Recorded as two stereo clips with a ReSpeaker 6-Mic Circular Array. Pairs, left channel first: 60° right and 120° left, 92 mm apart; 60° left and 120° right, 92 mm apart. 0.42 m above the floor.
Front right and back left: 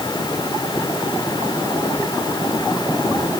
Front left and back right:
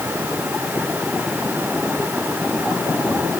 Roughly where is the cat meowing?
No cat meowing in this recording.